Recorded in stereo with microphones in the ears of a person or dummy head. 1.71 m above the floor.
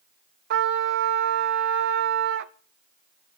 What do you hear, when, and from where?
0.5 s a trumpet: 60° right (ahead or behind), 0.7 m